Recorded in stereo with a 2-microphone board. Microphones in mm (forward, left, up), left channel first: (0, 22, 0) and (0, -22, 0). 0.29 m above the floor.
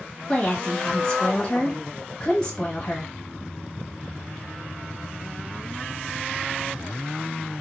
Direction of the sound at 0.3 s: 20° left (ahead or behind).